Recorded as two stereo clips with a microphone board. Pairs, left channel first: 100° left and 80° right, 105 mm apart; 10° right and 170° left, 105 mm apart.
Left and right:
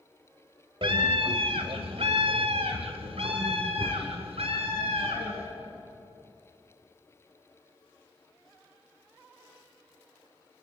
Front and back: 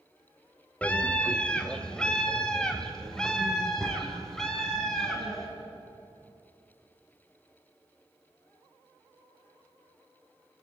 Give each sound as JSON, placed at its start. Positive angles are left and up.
{"t": 0.8, "sound": "a scream", "azimuth_deg": -85, "distance_m": 1.4}